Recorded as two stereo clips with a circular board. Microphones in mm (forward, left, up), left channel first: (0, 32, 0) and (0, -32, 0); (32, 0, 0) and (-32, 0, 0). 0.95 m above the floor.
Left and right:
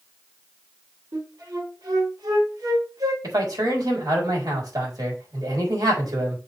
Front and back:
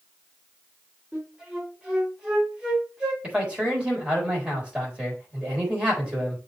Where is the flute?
100° right, 3 m.